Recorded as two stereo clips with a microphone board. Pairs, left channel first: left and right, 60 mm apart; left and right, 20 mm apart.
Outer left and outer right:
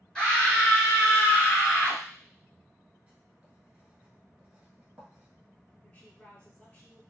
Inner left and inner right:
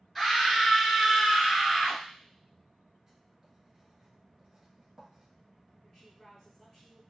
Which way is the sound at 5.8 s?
25° left (ahead or behind).